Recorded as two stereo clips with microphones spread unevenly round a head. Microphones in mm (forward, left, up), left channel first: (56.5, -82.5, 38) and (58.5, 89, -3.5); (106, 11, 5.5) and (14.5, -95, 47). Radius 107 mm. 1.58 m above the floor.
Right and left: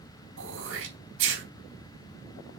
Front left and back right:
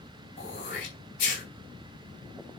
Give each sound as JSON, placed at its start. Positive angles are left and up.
{"t": 0.4, "sound": "throat clearing", "azimuth_deg": 110, "distance_m": 4.0}